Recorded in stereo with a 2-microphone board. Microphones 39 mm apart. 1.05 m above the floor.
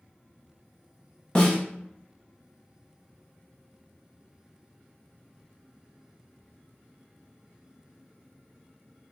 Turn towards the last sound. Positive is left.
turn(degrees=25)  # may be behind; listen again after turning